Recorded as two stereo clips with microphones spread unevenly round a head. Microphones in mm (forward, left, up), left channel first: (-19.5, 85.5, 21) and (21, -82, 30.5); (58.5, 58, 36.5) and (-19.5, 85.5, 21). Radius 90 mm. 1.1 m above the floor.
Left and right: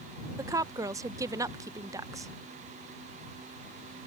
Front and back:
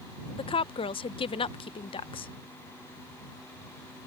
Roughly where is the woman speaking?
Ahead.